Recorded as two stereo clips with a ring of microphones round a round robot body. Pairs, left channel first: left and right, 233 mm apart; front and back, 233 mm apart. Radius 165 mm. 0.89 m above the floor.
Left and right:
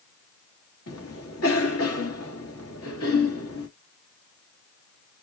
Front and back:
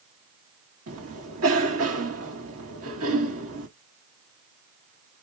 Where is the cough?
135° left, 1.7 m.